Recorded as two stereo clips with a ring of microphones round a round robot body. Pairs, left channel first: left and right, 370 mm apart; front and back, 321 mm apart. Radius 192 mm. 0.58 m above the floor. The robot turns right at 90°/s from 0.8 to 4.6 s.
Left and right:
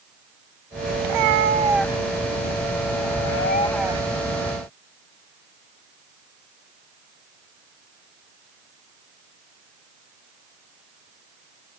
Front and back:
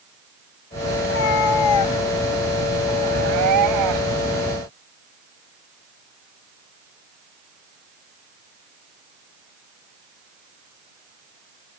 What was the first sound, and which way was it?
A cat meowing, 70° right.